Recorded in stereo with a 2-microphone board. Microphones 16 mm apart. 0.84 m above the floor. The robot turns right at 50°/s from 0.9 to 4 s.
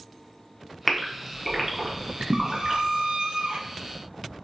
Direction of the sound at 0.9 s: 20° left (ahead or behind).